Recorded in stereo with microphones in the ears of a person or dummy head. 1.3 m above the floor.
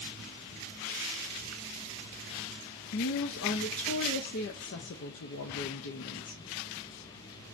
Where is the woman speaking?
65° left (ahead or behind), 0.5 m.